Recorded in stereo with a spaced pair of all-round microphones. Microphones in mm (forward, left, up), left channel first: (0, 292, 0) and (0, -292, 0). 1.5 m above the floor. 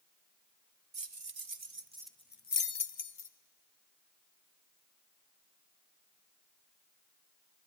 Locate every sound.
0.9 s keys jangling: 50° right (ahead or behind), 0.9 m; by 3.3 s 65° left (ahead or behind), 0.9 m